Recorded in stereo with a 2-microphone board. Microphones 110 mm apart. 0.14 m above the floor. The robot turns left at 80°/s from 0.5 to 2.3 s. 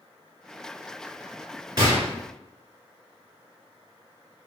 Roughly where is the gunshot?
Right.